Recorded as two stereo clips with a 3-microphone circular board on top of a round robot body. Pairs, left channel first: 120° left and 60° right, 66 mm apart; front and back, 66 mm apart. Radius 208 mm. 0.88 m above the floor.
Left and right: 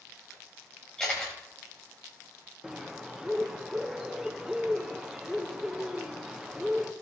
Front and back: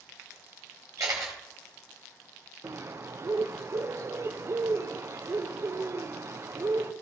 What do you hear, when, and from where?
1.0 s a camera shutter: 160° right, 0.7 m
2.6 s a bird: 140° right, 0.9 m